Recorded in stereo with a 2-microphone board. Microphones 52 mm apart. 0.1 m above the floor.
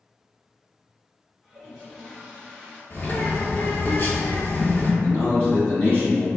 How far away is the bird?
About 1.0 m.